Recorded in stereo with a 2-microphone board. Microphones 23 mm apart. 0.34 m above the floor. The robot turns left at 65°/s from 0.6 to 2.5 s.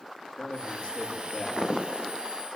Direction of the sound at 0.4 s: 60° left.